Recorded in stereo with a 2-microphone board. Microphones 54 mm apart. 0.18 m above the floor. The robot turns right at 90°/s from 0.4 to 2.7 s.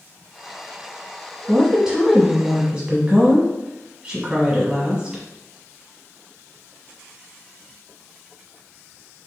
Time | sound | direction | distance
1.5 | a woman speaking | centre (ahead or behind) | 1.0 m